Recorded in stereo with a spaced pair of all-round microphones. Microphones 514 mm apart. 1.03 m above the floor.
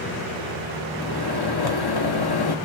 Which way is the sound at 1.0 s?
50° left (ahead or behind).